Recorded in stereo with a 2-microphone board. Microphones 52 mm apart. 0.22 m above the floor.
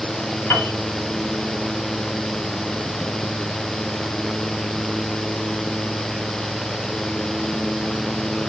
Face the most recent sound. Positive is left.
turn(degrees=40)  # may be behind; listen again after turning